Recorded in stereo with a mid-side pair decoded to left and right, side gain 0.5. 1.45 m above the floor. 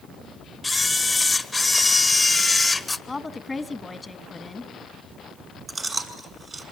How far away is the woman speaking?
About 1.6 m.